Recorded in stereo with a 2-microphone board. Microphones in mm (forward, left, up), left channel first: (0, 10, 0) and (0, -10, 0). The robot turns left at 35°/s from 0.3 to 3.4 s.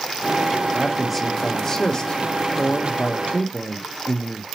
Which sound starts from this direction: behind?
A man speaking, at 0.7 s.